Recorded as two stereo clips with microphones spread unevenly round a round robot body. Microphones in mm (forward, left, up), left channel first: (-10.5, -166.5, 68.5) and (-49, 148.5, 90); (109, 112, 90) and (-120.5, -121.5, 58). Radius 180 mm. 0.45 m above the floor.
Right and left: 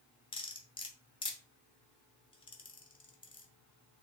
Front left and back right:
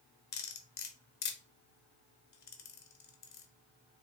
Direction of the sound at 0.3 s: 15° right.